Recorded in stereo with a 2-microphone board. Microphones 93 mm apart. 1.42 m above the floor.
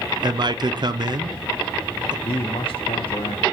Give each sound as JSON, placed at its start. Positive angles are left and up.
{"t": 0.2, "sound": "a man speaking", "side_deg": -50, "distance_m": 0.6}
{"t": 2.2, "sound": "a man speaking", "side_deg": 75, "distance_m": 0.7}